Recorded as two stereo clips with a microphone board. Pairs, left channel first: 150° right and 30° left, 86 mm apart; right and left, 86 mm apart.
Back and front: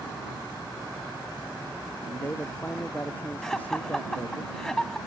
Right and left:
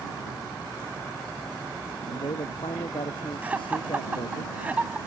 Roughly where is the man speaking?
Right.